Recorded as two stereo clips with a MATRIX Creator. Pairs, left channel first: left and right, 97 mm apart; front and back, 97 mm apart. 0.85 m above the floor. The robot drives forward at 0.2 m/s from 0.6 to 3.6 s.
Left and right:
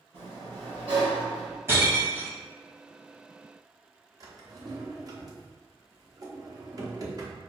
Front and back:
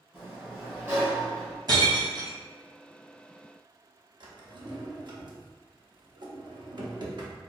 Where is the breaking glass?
150° right, 1.0 m; by 2.4 s 155° right, 1.1 m.